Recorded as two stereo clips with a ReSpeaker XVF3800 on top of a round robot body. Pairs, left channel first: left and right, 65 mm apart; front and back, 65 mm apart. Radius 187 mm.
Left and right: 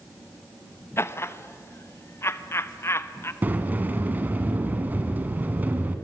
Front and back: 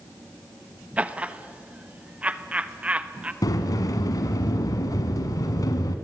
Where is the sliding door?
25° right, 1.4 m.